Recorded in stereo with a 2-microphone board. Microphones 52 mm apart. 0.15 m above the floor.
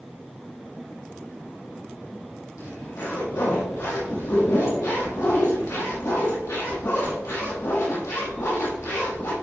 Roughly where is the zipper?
Left.